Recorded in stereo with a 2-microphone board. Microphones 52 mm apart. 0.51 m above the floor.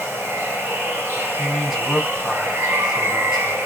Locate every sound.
0.0 s running water: 55° right (ahead or behind), 3 m
1.4 s a man speaking: 15° right (ahead or behind), 3 m